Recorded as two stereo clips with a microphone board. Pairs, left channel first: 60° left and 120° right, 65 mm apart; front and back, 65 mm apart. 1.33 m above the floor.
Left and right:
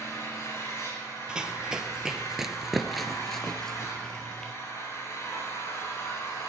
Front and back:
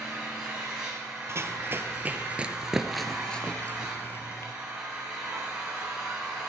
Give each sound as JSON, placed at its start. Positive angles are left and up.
{"t": 0.0, "sound": "an engine running", "azimuth_deg": 100, "distance_m": 8.0}
{"t": 1.3, "sound": "running footsteps", "azimuth_deg": 170, "distance_m": 1.8}